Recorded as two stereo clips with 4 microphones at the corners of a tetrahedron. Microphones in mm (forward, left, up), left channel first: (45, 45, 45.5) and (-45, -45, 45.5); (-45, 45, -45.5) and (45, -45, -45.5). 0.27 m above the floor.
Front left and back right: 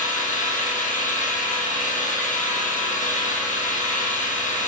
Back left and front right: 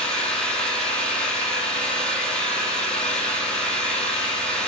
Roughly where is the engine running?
Ahead left.